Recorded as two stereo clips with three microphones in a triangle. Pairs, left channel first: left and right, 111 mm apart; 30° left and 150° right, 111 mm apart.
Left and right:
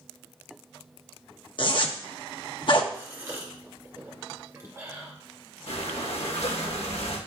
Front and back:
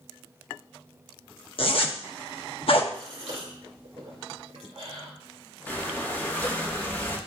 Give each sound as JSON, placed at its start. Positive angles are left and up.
{"t": 1.6, "sound": "a zipper", "azimuth_deg": 55, "distance_m": 0.9}
{"t": 2.9, "sound": "a gasp", "azimuth_deg": -160, "distance_m": 2.5}
{"t": 5.7, "sound": "breathing", "azimuth_deg": 100, "distance_m": 1.4}